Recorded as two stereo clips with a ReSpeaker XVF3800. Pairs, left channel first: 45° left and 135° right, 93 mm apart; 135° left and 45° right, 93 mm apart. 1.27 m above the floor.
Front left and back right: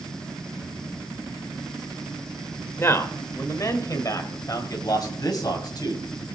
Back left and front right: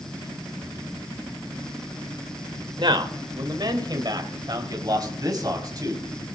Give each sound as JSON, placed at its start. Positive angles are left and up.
{"t": 2.8, "sound": "a man speaking", "azimuth_deg": -15, "distance_m": 1.9}